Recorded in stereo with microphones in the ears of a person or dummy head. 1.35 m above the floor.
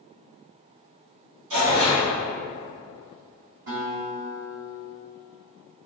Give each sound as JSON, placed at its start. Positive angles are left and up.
{"t": 1.5, "sound": "tearing paper", "side_deg": -70, "distance_m": 1.9}
{"t": 3.7, "sound": "a guitar", "side_deg": -55, "distance_m": 1.8}